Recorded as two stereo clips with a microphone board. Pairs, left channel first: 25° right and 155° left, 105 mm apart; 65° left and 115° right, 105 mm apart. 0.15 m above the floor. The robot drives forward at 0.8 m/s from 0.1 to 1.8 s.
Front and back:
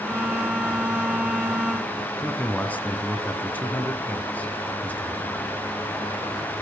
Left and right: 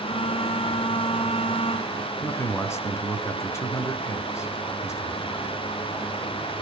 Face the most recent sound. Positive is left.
turn(degrees=40)